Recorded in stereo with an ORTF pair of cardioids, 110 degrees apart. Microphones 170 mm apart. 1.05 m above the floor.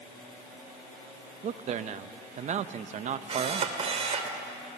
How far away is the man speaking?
About 0.8 m.